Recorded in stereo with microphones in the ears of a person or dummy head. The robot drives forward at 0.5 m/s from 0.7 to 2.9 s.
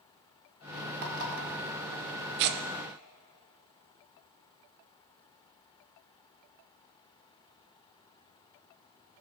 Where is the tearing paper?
55° right (ahead or behind), 0.8 m; by 2.6 s 60° right (ahead or behind), 0.8 m.